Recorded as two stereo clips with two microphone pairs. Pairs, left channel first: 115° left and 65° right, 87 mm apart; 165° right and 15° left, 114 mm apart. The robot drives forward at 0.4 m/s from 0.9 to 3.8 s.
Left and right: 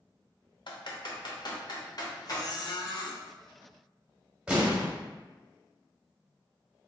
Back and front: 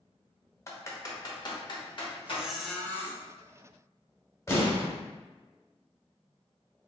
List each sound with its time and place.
0.7 s typing on a keyboard: 130° left, 0.6 m; by 2.4 s 155° left, 1.1 m
2.3 s a squeak: 85° left, 0.5 m; by 3.2 s 130° left, 0.6 m
4.5 s an explosion: 130° right, 0.9 m